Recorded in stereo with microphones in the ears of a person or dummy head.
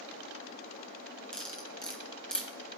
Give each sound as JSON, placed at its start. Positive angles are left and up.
{"t": 1.3, "sound": "cutlery clinking", "side_deg": 10, "distance_m": 1.5}